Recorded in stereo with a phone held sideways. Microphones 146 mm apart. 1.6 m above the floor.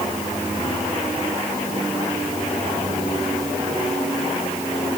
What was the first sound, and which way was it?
Only background noise.